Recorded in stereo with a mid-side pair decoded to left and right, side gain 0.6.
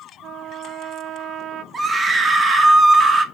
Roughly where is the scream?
Ahead right.